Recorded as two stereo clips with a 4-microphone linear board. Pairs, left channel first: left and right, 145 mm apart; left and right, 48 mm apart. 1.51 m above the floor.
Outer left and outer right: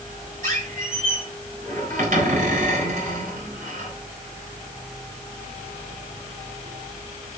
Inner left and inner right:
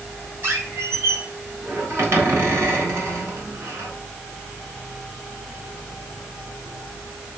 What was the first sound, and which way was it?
A squeak, 65° right (ahead or behind).